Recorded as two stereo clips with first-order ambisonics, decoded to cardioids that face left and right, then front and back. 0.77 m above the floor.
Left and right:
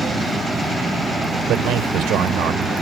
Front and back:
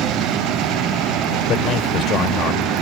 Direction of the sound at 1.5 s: 50° right.